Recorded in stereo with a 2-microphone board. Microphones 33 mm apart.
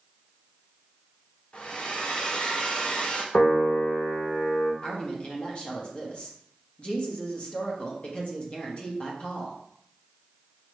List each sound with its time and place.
1.5 s a hair dryer: 40° left (ahead or behind), 0.8 m
3.3 s a piano: 55° left (ahead or behind), 1.0 m
4.8 s a woman speaking: 35° left (ahead or behind), 1.1 m